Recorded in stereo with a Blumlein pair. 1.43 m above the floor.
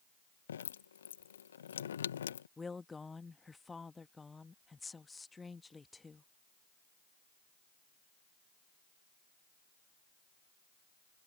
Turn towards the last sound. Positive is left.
turn(degrees=10)